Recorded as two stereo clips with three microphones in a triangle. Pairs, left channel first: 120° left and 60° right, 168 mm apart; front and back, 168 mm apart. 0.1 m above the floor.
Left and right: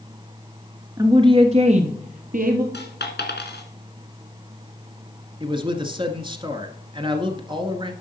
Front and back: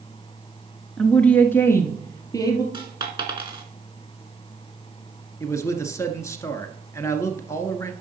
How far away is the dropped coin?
About 2 m.